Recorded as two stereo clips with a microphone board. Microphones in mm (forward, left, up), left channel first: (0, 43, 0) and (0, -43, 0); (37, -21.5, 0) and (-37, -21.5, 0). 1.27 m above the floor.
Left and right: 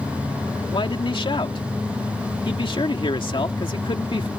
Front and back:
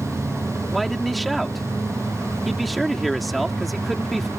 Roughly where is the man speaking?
Left.